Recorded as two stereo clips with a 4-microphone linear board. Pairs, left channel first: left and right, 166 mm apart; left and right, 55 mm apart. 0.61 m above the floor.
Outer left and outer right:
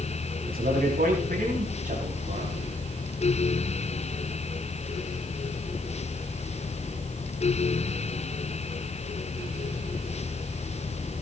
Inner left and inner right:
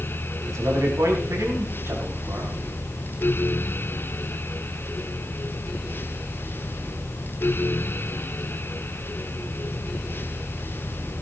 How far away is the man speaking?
About 5.5 m.